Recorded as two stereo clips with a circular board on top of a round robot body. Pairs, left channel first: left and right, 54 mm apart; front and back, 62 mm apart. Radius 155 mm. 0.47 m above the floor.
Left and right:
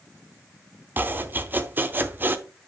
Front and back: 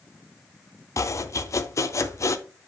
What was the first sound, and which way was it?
Chopping, 35° right.